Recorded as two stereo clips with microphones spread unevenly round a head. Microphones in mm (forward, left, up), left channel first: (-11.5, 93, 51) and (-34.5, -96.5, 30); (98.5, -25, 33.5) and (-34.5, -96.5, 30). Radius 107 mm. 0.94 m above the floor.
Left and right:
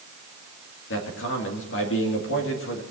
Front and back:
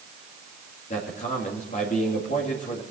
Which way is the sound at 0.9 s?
70° left.